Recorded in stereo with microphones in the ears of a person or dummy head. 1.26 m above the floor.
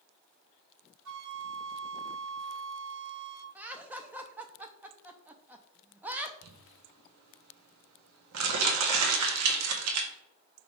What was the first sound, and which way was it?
A flute, 60° right (ahead or behind).